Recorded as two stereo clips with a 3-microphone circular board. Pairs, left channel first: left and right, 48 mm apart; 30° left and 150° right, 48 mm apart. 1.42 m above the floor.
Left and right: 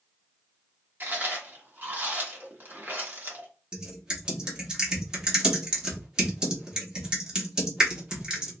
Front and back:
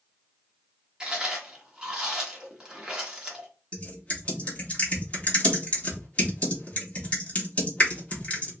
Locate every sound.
1.0 s chewing: 85° right, 1.2 m
3.7 s typing on a keyboard: 25° right, 1.3 m